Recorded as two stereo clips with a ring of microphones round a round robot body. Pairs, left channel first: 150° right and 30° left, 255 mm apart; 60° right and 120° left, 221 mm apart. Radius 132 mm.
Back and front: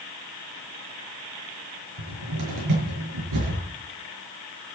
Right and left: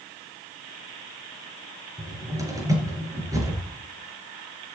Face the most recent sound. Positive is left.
turn(degrees=45)